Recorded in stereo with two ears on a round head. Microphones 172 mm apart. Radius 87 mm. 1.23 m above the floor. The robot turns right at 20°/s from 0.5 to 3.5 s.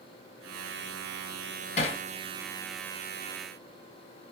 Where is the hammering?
40° left (ahead or behind), 1.3 m; by 2.0 s 35° left (ahead or behind), 1.3 m.